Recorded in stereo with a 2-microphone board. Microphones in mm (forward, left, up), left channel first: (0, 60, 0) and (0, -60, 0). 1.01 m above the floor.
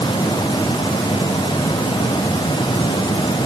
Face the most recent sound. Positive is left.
No sound to turn to.